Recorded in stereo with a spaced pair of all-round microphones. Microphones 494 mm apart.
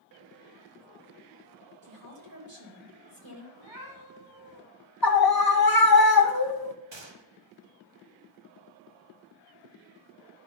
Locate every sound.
1.8 s a woman speaking: 60° right (ahead or behind), 3 m
3.5 s a cat meowing: 55° right (ahead or behind), 3 m
5.0 s a scream: 45° left (ahead or behind), 0.7 m
6.9 s a gunshot: 60° right (ahead or behind), 0.9 m